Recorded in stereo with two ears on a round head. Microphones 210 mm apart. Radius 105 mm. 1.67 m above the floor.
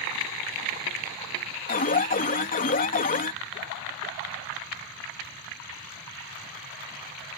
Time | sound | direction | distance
1.7 | an alarm | 35° left (ahead or behind) | ?